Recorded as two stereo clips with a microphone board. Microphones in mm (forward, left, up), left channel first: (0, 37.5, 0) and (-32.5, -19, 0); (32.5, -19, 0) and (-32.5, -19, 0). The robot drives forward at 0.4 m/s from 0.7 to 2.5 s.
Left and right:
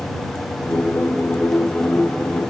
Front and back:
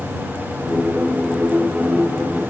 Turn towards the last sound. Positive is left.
No sound to turn to.